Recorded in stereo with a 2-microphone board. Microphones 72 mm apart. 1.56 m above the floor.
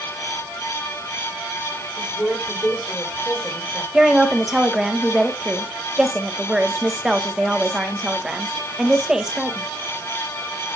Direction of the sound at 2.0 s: 15° left (ahead or behind).